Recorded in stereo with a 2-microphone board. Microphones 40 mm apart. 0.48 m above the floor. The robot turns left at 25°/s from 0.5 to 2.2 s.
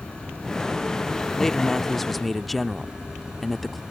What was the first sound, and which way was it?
An insect, 25° left.